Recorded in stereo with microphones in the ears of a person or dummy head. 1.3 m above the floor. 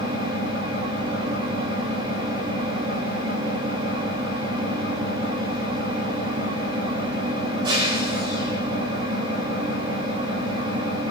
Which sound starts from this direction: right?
An engine running, at 0.0 s.